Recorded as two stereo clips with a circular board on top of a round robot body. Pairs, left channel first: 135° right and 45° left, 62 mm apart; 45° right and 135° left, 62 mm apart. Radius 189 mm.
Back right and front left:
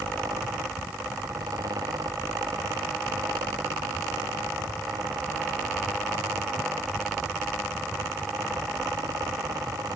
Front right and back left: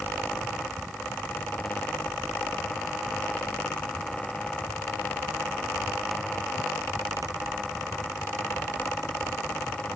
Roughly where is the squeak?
No squeak in this recording.